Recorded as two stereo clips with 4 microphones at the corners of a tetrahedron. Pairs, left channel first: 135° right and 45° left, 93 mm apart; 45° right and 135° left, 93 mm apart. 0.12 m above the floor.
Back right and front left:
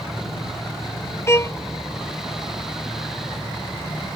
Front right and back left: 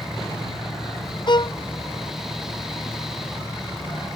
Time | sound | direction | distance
1.3 | a violin | 75° right | ?